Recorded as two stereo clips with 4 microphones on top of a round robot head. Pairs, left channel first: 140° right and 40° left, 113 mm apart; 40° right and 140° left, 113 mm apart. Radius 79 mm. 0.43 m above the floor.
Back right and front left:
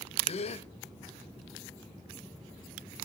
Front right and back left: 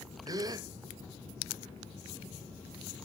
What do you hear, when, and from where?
0.3 s a gasp: 165° right, 1.2 m